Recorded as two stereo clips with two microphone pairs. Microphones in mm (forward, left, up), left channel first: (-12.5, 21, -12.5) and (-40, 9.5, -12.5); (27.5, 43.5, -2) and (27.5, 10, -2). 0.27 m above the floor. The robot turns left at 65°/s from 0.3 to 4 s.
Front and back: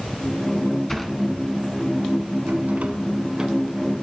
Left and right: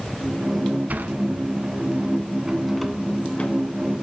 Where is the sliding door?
60° right, 1.0 m; by 3.6 s 125° left, 1.0 m.